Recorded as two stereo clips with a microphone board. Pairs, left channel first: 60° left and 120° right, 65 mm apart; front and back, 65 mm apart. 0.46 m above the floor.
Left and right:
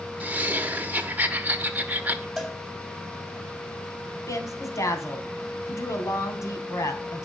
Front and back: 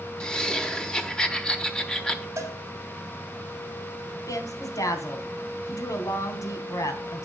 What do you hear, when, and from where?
0.2 s laughter: 70° right, 1.4 m
2.4 s a cowbell: 145° left, 2.5 m
4.3 s a woman speaking: 25° left, 3 m